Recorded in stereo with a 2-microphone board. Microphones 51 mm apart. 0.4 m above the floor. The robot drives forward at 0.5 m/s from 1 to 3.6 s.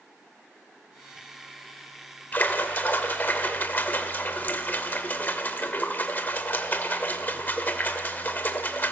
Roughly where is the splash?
Left.